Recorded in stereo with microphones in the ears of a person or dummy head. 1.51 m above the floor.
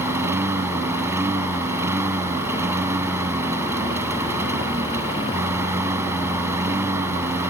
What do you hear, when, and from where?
0.0 s a lawn mower: 10° right (ahead or behind)